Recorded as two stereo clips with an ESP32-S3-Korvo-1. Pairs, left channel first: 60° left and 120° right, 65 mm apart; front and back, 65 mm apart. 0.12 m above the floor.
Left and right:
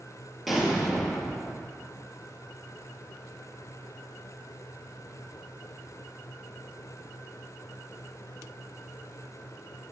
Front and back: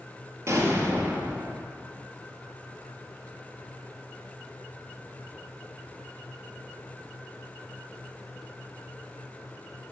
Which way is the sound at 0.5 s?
150° left.